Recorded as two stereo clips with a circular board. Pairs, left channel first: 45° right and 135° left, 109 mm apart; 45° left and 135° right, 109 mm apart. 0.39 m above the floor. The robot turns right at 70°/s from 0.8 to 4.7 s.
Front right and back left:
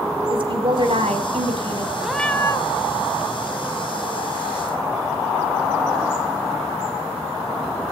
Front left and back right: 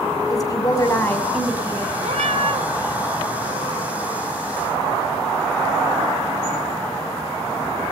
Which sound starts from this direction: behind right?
A cat meowing, at 2.0 s.